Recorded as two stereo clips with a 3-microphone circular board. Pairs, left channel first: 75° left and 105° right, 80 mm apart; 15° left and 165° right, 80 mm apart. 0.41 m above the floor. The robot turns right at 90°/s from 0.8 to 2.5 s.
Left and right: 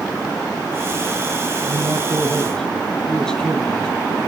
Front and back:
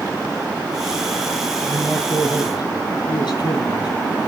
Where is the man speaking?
80° right, 6.5 m; by 4.3 s 5° right, 6.5 m.